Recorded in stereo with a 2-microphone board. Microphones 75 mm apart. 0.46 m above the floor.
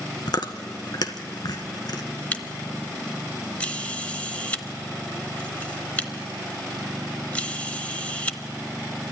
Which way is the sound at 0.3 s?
65° left (ahead or behind).